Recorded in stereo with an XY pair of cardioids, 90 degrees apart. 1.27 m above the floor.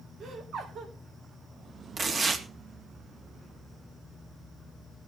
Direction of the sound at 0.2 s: 65° right.